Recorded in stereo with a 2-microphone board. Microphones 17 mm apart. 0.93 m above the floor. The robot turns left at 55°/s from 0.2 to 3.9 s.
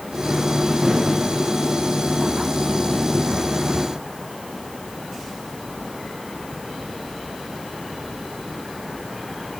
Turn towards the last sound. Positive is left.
No sound to turn to.